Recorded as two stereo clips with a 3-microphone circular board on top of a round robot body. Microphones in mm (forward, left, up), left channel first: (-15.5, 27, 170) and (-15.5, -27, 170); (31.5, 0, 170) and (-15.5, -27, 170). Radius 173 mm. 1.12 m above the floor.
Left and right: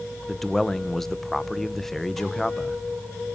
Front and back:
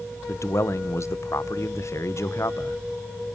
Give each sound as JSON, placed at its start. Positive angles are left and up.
{"t": 0.3, "sound": "a man speaking", "azimuth_deg": 5, "distance_m": 1.5}